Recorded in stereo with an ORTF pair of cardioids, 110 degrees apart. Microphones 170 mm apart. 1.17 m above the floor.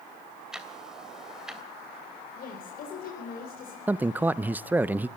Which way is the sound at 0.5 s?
5° right.